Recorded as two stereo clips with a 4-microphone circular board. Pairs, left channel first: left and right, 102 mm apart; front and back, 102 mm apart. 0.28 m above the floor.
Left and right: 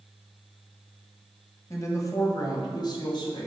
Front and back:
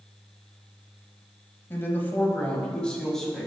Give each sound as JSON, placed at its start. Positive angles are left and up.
{"t": 1.7, "sound": "a woman speaking", "azimuth_deg": 55, "distance_m": 1.6}